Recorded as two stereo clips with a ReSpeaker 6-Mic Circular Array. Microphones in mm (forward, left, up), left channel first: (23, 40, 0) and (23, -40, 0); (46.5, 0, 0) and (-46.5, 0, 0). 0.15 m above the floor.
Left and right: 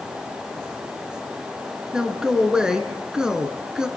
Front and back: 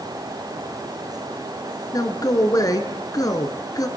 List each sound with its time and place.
1.9 s a man speaking: 15° right, 1.8 m